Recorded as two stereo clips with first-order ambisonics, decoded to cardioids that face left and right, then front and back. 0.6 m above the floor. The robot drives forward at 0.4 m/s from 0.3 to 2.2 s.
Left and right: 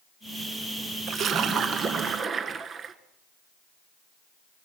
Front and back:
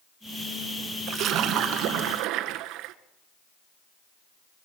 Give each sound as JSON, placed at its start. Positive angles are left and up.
{"t": 1.1, "sound": "a splash", "azimuth_deg": -135, "distance_m": 0.8}